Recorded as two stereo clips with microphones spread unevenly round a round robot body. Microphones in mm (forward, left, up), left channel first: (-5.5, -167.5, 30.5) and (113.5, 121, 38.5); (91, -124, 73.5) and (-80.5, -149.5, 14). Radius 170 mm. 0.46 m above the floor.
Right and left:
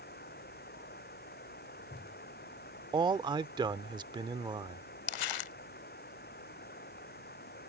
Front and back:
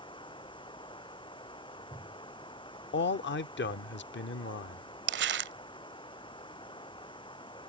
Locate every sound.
0.0 s running water: 50° right
2.9 s a man speaking: 5° right
5.1 s crumpling: 145° right